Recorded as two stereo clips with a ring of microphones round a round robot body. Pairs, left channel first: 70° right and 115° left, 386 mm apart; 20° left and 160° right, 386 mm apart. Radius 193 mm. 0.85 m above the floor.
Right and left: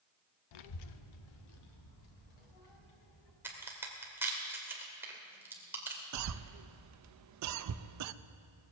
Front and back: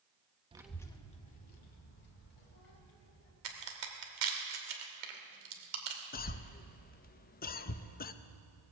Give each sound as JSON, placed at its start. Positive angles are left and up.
{"t": 0.5, "sound": "a child speaking", "azimuth_deg": -85, "distance_m": 0.7}
{"t": 3.4, "sound": "a crack", "azimuth_deg": -165, "distance_m": 2.5}
{"t": 6.1, "sound": "a cough", "azimuth_deg": 85, "distance_m": 0.6}